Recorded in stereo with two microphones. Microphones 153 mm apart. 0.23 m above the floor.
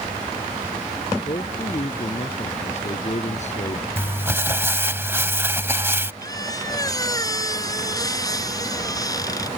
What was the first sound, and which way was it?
A man speaking, 40° left (ahead or behind).